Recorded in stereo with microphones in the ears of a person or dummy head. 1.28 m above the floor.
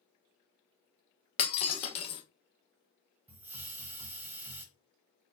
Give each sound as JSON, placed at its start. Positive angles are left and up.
{"t": 1.4, "sound": "breaking glass", "side_deg": 35, "distance_m": 0.8}
{"t": 3.3, "sound": "a hiss", "side_deg": -10, "distance_m": 1.1}